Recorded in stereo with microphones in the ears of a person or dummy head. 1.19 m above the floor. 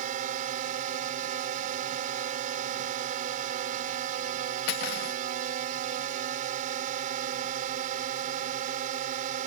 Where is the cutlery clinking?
60° left (ahead or behind).